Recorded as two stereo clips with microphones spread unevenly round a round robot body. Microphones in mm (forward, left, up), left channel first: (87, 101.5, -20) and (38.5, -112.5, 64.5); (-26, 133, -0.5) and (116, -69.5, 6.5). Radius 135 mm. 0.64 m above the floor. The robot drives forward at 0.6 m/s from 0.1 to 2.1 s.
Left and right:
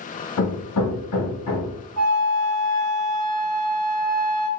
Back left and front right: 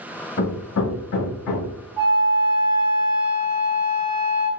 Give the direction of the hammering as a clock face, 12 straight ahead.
9 o'clock.